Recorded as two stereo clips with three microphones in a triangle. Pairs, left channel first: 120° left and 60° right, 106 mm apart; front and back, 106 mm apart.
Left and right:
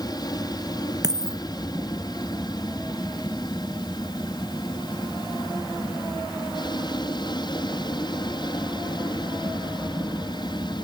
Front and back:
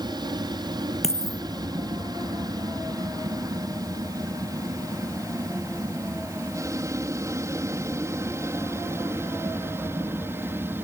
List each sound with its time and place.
0.0 s an aircraft: 155° left; by 10.9 s 120° left
1.0 s a dropped coin: 10° right